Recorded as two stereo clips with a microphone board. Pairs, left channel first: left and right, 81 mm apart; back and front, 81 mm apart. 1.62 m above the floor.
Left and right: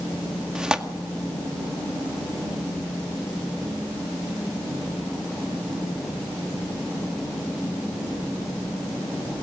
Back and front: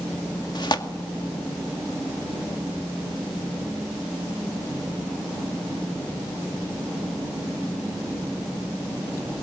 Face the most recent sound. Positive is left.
turn(degrees=-170)